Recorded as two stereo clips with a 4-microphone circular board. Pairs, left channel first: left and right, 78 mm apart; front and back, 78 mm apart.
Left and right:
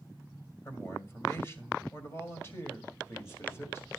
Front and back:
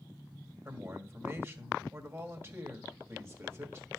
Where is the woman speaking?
135° left, 2.0 m.